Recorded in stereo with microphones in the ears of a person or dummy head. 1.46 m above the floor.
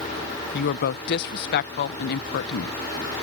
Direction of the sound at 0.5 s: 55° left (ahead or behind).